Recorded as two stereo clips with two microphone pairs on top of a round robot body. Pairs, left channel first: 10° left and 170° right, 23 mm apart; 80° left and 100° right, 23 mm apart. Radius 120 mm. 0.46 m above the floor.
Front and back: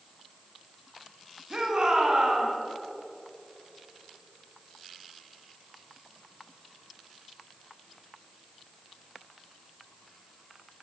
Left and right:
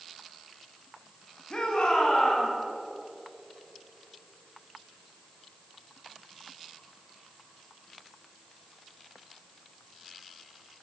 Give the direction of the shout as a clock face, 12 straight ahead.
8 o'clock.